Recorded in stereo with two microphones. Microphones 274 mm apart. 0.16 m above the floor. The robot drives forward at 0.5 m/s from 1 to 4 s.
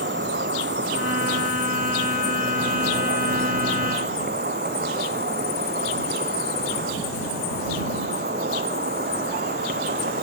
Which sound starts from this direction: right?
An insect, at 0.0 s.